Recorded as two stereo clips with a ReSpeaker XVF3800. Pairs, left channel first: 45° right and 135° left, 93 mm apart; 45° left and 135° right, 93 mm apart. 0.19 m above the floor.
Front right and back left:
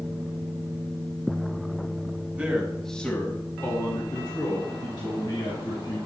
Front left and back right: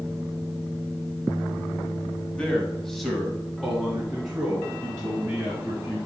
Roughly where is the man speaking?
Left.